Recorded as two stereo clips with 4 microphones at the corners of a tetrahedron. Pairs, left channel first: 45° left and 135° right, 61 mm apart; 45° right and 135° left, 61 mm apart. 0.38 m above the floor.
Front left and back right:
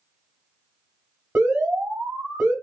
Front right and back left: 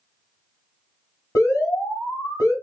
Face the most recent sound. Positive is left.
turn(degrees=-80)